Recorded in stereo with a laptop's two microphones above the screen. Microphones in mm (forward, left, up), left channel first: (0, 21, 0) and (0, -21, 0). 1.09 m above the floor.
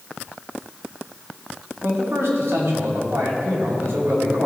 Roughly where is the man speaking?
Right.